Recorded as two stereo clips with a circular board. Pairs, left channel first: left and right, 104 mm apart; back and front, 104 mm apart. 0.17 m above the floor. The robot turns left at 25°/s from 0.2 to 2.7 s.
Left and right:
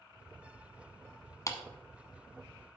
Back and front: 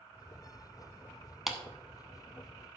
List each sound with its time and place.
1.5 s a clap: 85° left, 1.0 m; by 1.6 s 80° left, 1.0 m